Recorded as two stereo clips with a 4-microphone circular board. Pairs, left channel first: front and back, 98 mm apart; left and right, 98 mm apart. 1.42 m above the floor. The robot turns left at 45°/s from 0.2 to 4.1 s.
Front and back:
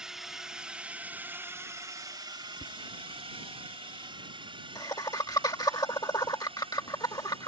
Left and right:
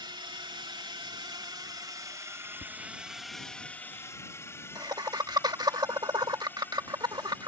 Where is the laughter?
20° left; by 7.5 s 45° right.